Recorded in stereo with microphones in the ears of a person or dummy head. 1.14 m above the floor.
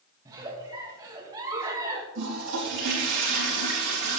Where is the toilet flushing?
65° right (ahead or behind), 3.5 m.